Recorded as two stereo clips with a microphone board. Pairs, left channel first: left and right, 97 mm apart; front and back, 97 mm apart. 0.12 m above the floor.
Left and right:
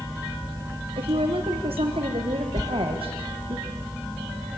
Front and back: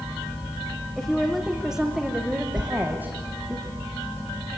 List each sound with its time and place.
1.0 s a woman speaking: 85° right, 5 m; by 3.6 s 110° right, 7 m
2.6 s a sliding door: 145° left, 1.1 m